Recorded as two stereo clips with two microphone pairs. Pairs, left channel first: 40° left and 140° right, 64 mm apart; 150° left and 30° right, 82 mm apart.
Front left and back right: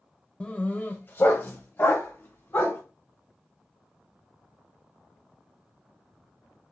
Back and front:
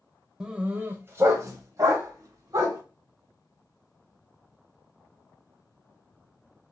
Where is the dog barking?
35° left, 0.7 m; by 2.8 s straight ahead, 2 m.